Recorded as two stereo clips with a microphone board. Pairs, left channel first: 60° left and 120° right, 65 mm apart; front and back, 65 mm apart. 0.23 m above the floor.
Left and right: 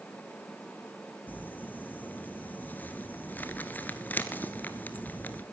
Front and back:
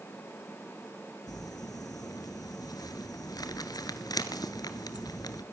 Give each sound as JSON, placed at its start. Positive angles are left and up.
{"t": 1.3, "sound": "crumpling", "azimuth_deg": 0, "distance_m": 1.2}